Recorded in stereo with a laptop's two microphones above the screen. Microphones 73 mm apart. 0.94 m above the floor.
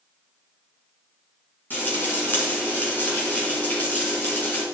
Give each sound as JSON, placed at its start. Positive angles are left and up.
{"t": 1.7, "sound": "frying", "side_deg": 25, "distance_m": 2.5}